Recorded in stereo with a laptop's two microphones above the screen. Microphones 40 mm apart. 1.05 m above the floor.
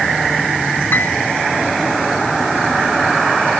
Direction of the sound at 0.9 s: 55° left (ahead or behind).